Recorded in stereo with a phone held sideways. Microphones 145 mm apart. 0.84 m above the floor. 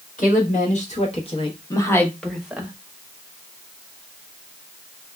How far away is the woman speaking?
About 1.4 m.